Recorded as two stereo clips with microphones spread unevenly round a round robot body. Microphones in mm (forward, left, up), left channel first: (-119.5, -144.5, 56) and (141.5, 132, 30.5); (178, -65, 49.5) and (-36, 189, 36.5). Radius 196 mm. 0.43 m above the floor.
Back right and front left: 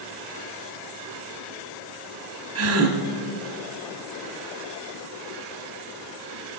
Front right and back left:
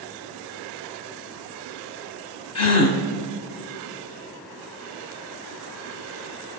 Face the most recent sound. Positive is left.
turn(degrees=-10)